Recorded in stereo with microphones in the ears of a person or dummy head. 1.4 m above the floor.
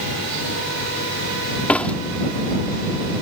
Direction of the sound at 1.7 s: 5° left (ahead or behind).